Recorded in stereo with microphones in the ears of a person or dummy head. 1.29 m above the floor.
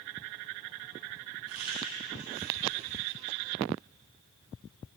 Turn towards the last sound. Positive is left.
turn(degrees=-90)